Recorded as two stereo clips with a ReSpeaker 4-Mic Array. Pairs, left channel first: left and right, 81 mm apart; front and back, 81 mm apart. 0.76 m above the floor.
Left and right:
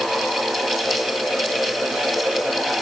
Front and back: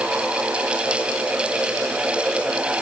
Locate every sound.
Only background noise.